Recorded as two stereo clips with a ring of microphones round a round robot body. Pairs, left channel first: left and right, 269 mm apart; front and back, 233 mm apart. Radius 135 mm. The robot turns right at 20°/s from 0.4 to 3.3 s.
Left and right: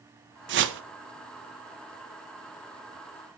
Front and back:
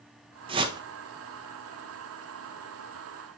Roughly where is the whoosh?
Behind right.